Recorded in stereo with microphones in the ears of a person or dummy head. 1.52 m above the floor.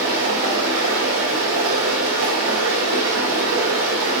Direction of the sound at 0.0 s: 85° right.